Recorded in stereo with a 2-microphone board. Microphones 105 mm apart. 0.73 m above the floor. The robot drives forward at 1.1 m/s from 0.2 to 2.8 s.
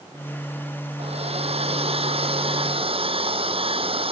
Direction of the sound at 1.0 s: 75° right (ahead or behind).